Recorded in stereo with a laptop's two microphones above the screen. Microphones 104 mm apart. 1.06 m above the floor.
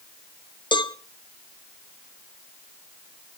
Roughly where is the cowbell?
Left.